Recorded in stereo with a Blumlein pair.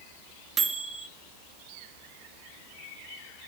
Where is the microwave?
20° right, 0.5 m.